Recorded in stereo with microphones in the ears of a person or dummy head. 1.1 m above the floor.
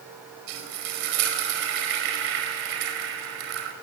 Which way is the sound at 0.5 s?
70° right (ahead or behind).